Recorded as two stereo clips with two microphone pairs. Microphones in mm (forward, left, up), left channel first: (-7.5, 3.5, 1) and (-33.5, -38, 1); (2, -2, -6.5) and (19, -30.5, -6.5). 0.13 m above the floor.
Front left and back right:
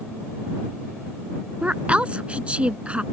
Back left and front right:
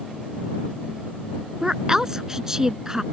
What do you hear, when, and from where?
1.6 s a woman speaking: 105° right